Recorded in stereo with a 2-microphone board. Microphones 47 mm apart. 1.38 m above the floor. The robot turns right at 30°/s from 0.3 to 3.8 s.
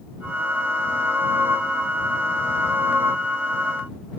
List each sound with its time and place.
Only background noise.